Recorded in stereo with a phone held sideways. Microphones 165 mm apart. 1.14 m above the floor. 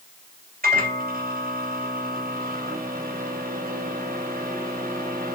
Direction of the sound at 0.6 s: 75° right (ahead or behind).